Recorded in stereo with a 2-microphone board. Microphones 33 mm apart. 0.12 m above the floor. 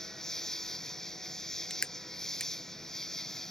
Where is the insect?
15° left (ahead or behind).